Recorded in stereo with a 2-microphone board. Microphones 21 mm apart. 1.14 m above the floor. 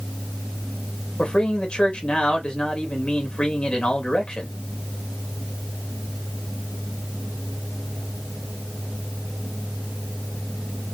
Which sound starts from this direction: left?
A man speaking, at 1.2 s.